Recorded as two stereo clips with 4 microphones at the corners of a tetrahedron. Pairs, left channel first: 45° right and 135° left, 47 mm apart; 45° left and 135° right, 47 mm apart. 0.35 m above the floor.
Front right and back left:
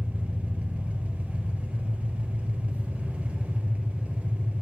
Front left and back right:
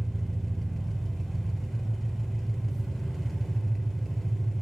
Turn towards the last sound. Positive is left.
turn(degrees=130)